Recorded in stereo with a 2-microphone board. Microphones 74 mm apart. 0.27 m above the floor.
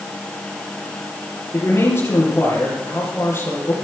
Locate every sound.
1.5 s a man speaking: 40° left (ahead or behind), 5.5 m